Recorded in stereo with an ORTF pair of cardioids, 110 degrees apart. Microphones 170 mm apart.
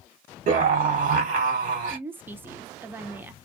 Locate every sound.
0.5 s a scream: 50° right, 1.4 m
1.9 s a woman speaking: 10° right, 0.6 m